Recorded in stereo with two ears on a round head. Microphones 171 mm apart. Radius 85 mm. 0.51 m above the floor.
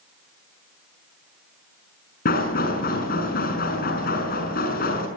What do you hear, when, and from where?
2.2 s knocking: 55° left (ahead or behind), 6 m